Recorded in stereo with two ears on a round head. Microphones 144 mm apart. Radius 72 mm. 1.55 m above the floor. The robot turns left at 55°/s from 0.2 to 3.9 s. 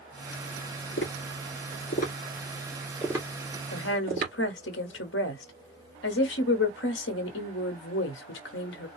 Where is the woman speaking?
80° left, 1.1 m.